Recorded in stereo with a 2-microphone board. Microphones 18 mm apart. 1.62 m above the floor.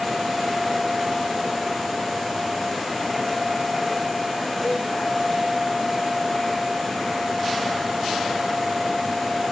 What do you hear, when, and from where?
4.6 s a cowbell: 5° right (ahead or behind), 1.0 m